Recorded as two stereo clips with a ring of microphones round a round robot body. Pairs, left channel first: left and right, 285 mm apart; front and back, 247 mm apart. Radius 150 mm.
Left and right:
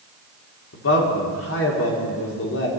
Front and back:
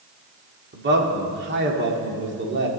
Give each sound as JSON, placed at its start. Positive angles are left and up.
{"t": 0.7, "sound": "a man speaking", "azimuth_deg": 135, "distance_m": 1.9}